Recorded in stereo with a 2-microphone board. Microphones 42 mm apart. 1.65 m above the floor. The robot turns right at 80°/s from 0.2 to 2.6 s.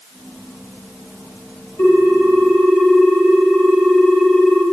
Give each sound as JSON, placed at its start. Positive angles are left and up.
{"t": 1.8, "sound": "a ringtone", "azimuth_deg": 90, "distance_m": 4.0}